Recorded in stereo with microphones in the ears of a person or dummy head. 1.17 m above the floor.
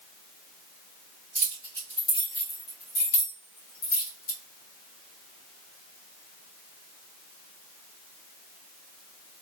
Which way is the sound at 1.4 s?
5° left (ahead or behind).